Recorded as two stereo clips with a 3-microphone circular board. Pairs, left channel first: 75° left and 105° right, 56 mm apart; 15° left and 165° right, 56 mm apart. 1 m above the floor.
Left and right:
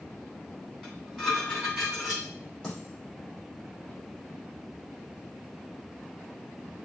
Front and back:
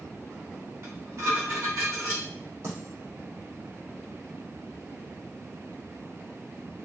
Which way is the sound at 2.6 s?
155° left.